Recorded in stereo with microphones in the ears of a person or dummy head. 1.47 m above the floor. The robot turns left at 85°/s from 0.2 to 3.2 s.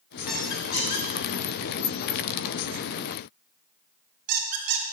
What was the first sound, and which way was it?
A squeak, 10° right (ahead or behind).